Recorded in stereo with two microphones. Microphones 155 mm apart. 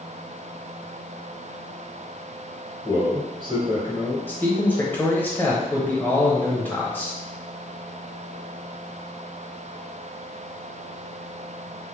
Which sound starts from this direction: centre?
A man speaking, at 4.3 s.